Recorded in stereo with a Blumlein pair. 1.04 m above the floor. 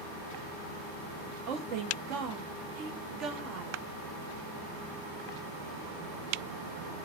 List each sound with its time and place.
1.5 s a woman speaking: 40° right, 1.2 m